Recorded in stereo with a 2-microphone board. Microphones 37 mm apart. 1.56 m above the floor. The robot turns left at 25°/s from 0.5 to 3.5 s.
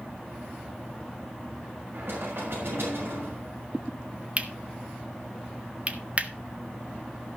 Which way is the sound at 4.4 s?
35° right (ahead or behind).